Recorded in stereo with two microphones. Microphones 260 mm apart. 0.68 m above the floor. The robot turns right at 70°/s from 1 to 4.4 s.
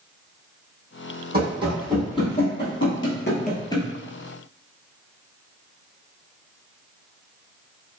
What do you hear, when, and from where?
1.3 s running footsteps: 40° right (ahead or behind), 1.7 m; by 3.9 s 5° left (ahead or behind), 0.7 m